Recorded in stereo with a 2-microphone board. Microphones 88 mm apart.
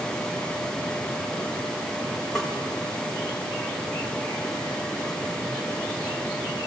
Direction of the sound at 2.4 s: 5° left (ahead or behind).